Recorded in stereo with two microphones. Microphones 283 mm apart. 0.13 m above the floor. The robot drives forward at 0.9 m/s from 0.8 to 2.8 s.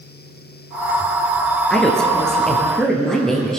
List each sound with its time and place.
1.7 s a woman speaking: 5° left (ahead or behind), 2.0 m; by 3.6 s centre (ahead or behind), 3 m